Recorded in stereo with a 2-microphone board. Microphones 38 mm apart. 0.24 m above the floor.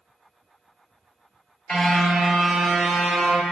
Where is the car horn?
15° left (ahead or behind), 3 m; by 3.4 s 5° right (ahead or behind), 4 m.